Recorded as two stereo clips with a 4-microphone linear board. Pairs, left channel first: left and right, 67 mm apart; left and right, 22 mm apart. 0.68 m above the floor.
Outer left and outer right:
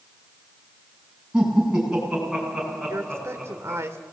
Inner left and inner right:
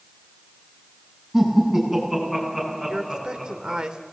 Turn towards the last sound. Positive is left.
turn(degrees=-45)  # may be behind; listen again after turning